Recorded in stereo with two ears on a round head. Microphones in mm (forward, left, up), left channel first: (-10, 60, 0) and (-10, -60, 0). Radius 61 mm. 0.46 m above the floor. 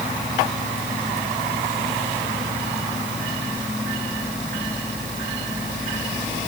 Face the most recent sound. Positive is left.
No sound to turn to.